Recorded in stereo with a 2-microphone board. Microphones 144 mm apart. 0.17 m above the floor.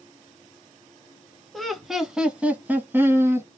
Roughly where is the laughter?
Centre.